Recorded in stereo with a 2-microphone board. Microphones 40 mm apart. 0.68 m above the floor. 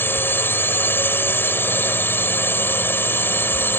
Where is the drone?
60° left (ahead or behind).